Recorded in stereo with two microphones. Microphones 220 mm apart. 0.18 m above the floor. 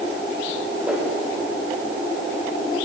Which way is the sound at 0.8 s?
5° right (ahead or behind).